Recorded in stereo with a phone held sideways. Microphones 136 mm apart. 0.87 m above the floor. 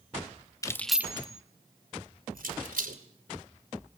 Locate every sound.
0.6 s keys jangling: 25° left (ahead or behind), 1.0 m; by 3.0 s 75° right (ahead or behind), 3 m